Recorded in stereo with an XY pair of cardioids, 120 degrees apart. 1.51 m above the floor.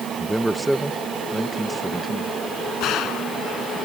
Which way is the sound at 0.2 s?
5° right.